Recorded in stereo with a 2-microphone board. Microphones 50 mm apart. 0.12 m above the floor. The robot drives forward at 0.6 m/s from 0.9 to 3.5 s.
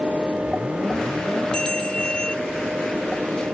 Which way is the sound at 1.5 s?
15° left (ahead or behind).